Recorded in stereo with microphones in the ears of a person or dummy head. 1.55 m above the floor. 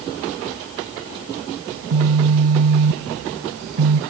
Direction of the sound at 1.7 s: 60° right (ahead or behind).